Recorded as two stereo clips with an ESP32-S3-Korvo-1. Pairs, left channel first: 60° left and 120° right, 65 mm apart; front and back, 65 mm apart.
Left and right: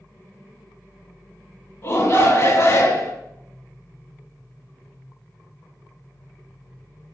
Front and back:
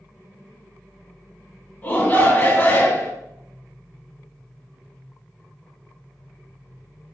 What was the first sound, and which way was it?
A shout, 50° left.